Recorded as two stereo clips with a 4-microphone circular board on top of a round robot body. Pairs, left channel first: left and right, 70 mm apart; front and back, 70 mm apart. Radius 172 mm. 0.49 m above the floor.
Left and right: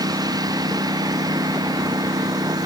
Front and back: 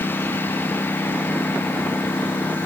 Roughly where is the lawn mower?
Ahead right.